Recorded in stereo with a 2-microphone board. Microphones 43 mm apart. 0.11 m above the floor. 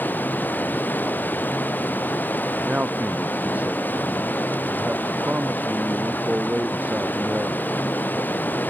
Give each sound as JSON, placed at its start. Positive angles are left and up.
{"t": 0.0, "sound": "running water", "side_deg": 45}
{"t": 2.6, "sound": "a man speaking", "side_deg": -40}